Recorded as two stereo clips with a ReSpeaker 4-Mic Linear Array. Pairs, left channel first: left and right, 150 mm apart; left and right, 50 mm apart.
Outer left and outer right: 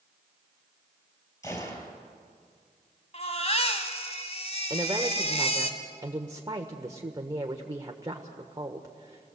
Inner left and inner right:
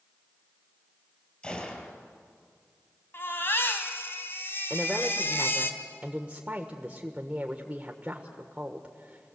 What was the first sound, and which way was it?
A gunshot, 20° left (ahead or behind).